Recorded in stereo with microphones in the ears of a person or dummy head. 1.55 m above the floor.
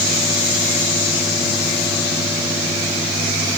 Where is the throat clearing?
I don't hear throat clearing.